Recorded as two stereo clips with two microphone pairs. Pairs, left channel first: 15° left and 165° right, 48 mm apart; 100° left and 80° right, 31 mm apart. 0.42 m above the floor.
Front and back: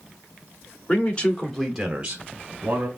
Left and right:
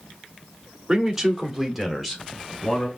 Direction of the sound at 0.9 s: 10° right.